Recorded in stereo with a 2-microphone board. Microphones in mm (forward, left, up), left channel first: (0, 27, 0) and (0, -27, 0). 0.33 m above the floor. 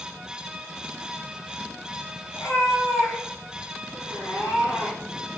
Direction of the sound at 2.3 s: 65° left (ahead or behind).